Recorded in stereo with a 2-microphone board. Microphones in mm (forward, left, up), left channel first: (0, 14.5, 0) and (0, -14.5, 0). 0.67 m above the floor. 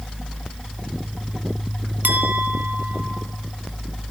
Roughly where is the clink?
Right.